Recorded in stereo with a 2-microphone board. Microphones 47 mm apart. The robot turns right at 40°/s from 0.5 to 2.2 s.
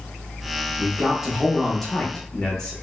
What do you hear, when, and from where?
0.8 s a man speaking: 20° right (ahead or behind), 0.8 m; by 2.7 s 10° left (ahead or behind), 0.8 m